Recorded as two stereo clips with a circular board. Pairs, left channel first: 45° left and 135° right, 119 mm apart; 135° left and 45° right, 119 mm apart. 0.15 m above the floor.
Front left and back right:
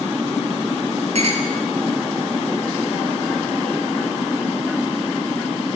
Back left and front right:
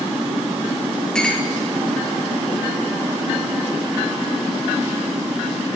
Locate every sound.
1.1 s a clink: 140° right, 2.5 m